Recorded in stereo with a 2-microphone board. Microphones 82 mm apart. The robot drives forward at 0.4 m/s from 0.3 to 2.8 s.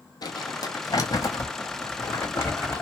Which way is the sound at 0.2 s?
60° left (ahead or behind).